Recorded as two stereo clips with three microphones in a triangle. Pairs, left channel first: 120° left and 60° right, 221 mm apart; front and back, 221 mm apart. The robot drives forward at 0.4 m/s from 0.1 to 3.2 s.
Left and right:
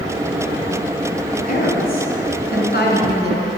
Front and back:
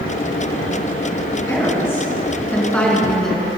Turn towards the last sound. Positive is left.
turn(degrees=85)